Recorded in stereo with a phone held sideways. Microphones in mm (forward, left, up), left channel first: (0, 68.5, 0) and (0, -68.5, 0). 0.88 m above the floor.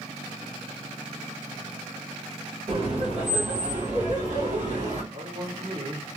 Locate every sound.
2.7 s laughter: 40° right (ahead or behind), 0.7 m; by 5.0 s 70° right (ahead or behind), 1.7 m
5.1 s a man speaking: 35° right (ahead or behind), 1.8 m